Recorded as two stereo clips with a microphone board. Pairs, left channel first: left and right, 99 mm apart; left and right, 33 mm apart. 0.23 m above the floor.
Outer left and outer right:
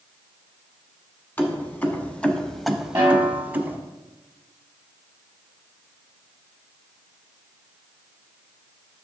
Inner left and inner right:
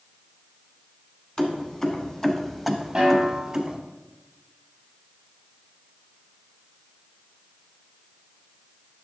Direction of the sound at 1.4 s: 20° left (ahead or behind).